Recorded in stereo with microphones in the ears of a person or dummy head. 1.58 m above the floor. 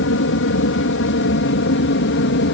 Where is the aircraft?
65° left (ahead or behind); by 2.5 s 60° left (ahead or behind).